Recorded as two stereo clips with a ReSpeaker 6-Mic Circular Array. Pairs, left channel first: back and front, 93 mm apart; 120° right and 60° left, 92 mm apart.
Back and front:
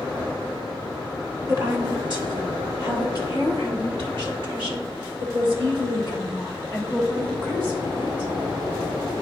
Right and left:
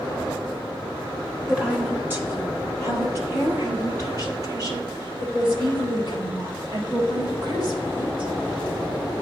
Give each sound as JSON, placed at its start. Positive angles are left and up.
{"t": 1.5, "sound": "a woman speaking", "azimuth_deg": -20, "distance_m": 1.3}